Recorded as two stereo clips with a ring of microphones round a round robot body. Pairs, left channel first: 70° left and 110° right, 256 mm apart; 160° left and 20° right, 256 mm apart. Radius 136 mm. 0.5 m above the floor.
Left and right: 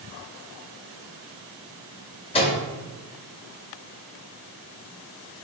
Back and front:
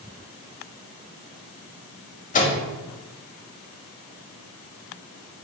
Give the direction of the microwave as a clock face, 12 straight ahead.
8 o'clock.